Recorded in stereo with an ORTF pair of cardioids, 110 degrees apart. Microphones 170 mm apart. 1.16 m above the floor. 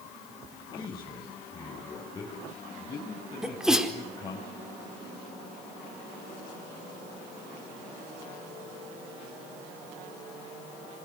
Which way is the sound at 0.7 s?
25° left.